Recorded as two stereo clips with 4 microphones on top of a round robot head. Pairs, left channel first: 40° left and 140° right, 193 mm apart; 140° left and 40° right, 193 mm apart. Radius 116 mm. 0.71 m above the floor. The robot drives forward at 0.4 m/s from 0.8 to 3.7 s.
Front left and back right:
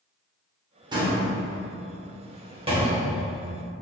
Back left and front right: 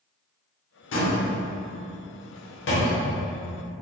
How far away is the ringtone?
No ringtone in this recording.